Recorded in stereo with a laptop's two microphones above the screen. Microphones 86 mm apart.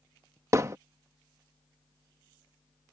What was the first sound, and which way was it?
Hammering, 35° right (ahead or behind).